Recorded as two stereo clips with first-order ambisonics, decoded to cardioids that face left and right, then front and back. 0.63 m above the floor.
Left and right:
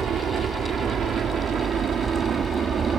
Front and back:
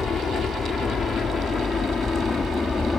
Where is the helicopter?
55° right; by 3.0 s 65° right.